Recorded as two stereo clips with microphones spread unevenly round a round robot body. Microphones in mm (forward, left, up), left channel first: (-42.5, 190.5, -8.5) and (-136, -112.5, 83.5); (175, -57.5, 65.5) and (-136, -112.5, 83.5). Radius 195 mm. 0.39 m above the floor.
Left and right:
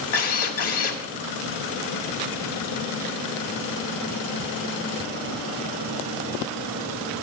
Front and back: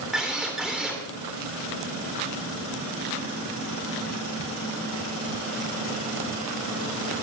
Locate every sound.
0.1 s a drill: 100° left, 3 m